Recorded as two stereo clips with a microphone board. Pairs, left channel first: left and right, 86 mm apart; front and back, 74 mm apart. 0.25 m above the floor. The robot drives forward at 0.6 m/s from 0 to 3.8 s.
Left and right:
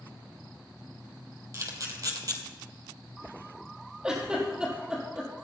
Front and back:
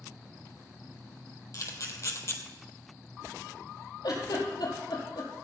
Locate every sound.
1.5 s a camera shutter: 40° right, 2.5 m; by 2.4 s 50° right, 1.9 m
4.0 s a giggle: 10° right, 4.5 m